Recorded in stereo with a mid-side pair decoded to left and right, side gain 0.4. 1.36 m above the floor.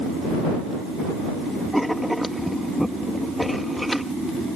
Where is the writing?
Straight ahead.